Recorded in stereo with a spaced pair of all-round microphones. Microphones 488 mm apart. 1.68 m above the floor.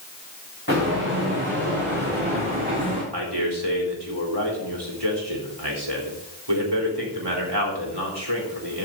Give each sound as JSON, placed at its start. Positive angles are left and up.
{"t": 0.7, "sound": "footsteps", "side_deg": -25, "distance_m": 6.5}
{"t": 3.1, "sound": "a man speaking", "side_deg": -55, "distance_m": 4.0}